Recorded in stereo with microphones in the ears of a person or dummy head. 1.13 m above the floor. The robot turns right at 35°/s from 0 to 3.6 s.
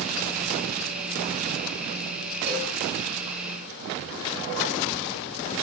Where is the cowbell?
35° right (ahead or behind), 4 m; by 2.8 s 25° right (ahead or behind), 4 m.